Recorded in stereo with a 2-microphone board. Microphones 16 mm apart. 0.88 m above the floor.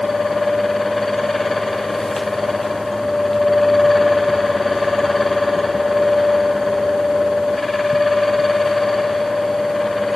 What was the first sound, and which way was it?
Only background noise.